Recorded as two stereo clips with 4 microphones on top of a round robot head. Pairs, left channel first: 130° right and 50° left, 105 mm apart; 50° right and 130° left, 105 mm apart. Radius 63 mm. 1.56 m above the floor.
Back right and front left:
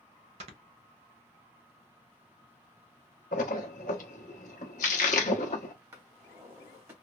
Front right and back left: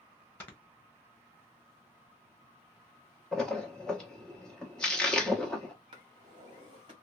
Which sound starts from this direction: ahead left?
Snoring, at 0.4 s.